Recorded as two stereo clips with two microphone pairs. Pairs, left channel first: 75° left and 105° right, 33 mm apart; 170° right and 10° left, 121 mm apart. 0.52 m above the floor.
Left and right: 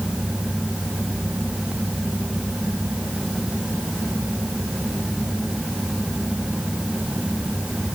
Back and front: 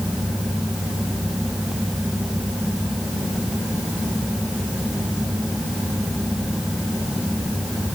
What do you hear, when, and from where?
Only background noise.